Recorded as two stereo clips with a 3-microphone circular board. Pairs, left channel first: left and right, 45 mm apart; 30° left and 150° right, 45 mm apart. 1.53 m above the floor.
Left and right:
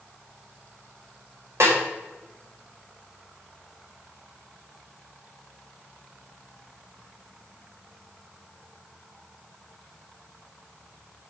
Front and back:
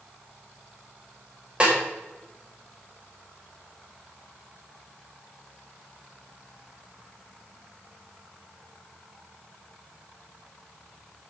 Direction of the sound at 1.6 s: 80° right.